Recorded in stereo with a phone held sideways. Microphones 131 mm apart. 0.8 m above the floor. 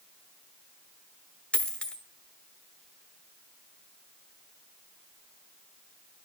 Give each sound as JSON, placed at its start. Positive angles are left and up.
{"t": 1.5, "sound": "a dropped coin", "side_deg": 10, "distance_m": 1.0}